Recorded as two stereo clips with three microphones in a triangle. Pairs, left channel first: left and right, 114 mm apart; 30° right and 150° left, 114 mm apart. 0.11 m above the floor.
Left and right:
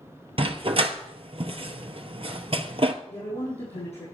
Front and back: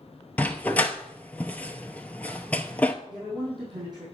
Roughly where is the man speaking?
Left.